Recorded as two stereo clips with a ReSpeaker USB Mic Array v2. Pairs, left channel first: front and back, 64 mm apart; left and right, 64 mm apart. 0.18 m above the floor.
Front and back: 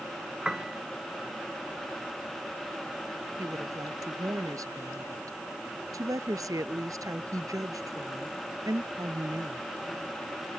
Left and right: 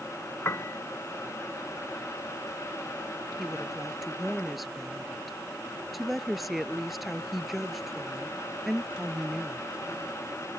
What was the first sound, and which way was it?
A piano, 100° left.